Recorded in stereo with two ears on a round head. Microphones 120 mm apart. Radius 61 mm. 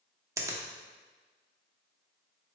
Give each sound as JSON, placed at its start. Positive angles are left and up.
{"t": 0.4, "sound": "a finger snap", "side_deg": -25, "distance_m": 0.7}